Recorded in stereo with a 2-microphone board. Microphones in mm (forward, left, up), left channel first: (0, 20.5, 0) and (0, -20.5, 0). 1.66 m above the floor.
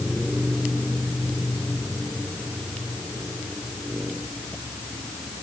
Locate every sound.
Only background noise.